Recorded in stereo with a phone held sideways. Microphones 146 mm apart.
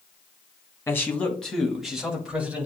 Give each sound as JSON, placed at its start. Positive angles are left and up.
{"t": 0.9, "sound": "a man speaking", "side_deg": 20, "distance_m": 1.6}